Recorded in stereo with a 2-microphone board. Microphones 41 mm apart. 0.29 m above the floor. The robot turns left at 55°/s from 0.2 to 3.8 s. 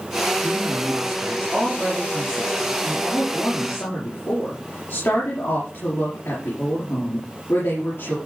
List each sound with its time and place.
0.4 s a woman speaking: 75° right, 6 m; by 8.2 s 100° left, 6 m